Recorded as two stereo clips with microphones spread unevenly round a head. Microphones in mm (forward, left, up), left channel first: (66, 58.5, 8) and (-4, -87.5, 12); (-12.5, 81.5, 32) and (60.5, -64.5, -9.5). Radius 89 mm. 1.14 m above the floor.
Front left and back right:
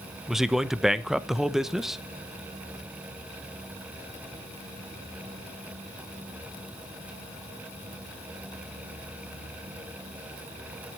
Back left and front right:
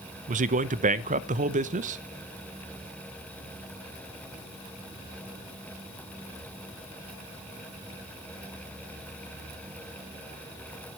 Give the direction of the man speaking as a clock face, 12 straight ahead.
1 o'clock.